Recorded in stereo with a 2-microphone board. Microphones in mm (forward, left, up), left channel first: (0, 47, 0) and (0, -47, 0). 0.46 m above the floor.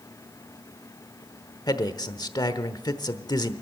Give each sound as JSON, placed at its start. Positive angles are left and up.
{"t": 1.7, "sound": "a man speaking", "side_deg": 45, "distance_m": 1.0}